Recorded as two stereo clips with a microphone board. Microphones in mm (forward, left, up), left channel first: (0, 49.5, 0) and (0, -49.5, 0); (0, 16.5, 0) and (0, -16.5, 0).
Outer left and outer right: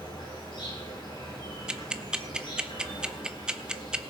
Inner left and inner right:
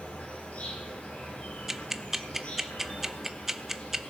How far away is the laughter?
No laughter in this recording.